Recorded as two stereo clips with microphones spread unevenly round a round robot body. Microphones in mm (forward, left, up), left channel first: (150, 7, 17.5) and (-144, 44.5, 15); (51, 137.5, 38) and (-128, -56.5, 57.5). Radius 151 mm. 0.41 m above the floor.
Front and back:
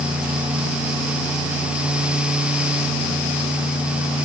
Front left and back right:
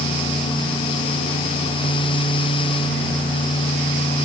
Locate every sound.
Only background noise.